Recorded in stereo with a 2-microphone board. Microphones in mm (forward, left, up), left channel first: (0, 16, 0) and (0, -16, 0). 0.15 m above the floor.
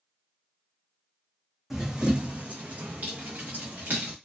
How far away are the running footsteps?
About 0.6 m.